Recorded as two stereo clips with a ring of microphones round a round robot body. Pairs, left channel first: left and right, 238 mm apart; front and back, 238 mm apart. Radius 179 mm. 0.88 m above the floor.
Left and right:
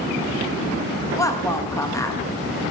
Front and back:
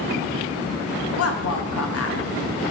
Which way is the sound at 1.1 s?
15° left.